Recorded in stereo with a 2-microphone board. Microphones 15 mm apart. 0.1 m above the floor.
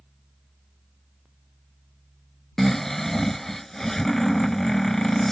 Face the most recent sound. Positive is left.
turn(degrees=20)  # may be behind; listen again after turning